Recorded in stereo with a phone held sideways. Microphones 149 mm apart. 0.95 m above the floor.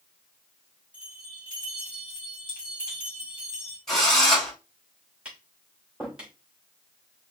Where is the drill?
Centre (ahead or behind), 3 m.